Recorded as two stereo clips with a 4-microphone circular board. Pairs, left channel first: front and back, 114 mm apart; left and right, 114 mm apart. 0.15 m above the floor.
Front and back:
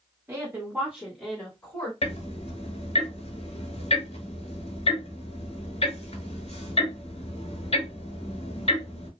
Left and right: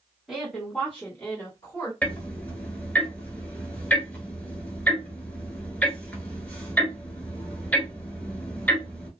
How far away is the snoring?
I don't hear snoring.